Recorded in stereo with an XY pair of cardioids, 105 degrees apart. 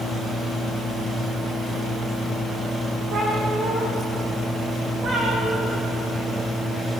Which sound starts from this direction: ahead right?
A cat meowing, at 3.1 s.